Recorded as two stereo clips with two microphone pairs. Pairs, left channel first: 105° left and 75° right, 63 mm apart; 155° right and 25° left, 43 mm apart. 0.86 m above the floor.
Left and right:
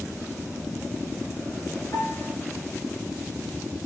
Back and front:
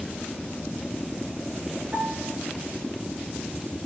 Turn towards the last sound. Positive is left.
turn(degrees=70)